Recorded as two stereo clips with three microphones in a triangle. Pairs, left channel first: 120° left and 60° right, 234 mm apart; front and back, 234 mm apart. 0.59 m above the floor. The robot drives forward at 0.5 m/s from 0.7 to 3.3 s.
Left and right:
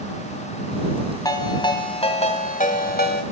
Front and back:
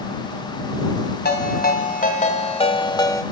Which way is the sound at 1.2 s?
45° left.